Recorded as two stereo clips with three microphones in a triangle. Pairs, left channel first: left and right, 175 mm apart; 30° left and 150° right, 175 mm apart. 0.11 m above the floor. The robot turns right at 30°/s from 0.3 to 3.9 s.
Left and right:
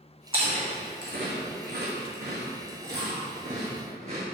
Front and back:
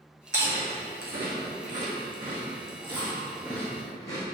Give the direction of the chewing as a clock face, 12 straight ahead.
5 o'clock.